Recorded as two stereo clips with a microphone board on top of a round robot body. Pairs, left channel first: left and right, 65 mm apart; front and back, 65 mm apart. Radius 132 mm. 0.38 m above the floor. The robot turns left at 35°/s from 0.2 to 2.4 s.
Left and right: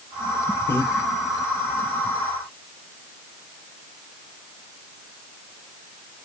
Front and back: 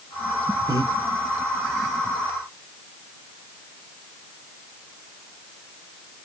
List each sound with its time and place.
0.7 s breathing: 150° left, 0.6 m; by 0.9 s 140° left, 0.6 m